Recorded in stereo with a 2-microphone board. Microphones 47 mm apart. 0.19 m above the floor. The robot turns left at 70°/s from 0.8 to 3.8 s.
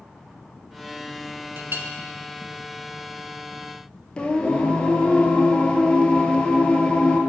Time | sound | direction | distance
1.6 | a clink | 55° right (ahead or behind) | 1.0 m
4.2 | singing | 25° left (ahead or behind) | 0.8 m